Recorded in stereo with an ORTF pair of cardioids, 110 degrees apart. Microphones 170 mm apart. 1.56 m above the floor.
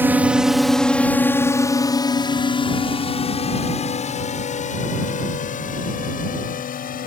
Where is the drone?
10° right; by 7.1 s 50° left.